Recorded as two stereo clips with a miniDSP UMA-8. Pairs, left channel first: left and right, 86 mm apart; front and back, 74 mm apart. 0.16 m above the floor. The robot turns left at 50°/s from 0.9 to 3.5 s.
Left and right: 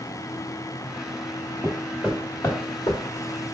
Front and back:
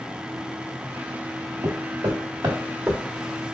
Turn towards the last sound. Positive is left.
turn(degrees=80)